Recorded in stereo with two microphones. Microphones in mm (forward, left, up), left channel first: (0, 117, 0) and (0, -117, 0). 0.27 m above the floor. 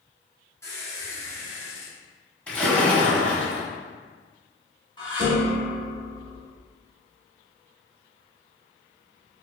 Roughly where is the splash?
Centre.